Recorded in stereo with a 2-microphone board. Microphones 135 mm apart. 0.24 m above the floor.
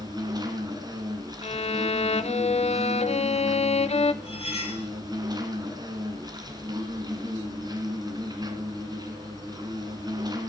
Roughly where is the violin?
Left.